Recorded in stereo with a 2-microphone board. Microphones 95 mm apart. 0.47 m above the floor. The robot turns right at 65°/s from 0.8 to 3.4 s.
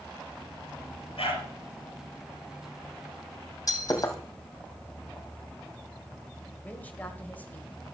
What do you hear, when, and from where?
1.2 s a dog barking: 85° left, 3.5 m; by 1.5 s 75° left (ahead or behind), 3.5 m
3.7 s breaking glass: 35° left (ahead or behind), 2 m
6.6 s a woman speaking: 20° left (ahead or behind), 1.8 m